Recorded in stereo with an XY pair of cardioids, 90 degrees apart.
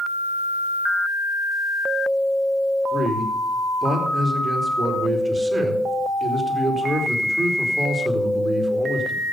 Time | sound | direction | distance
2.9 | a man speaking | 25° right | 4.5 m